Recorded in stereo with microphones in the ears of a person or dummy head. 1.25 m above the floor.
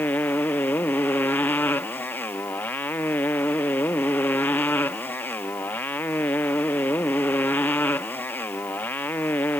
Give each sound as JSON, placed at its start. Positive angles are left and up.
{"t": 0.0, "sound": "a motorcycle", "side_deg": 10}